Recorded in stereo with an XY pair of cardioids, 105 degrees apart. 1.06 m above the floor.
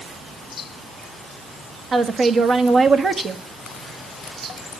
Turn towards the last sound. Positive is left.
turn(degrees=-40)